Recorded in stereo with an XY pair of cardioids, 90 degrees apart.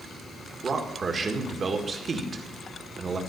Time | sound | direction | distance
0.6 | a man speaking | 40° right | 1.7 m